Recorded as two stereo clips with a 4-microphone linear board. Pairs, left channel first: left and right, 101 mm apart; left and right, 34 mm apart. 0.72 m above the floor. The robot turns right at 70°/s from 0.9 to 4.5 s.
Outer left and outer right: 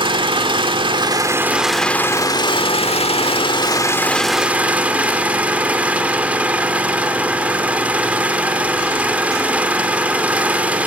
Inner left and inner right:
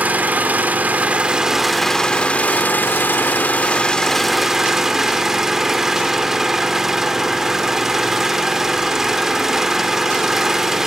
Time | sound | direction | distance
0.0 | an engine running | 60° right | 1.5 m